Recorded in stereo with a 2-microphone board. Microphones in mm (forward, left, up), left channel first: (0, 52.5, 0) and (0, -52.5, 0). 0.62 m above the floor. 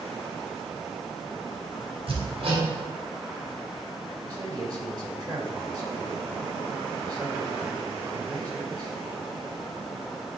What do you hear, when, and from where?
2.1 s hammering: 65° right (ahead or behind), 3 m
4.2 s a man speaking: 40° right (ahead or behind), 2 m